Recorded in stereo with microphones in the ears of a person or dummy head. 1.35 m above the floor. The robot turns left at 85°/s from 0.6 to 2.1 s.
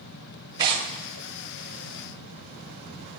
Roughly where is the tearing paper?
Centre.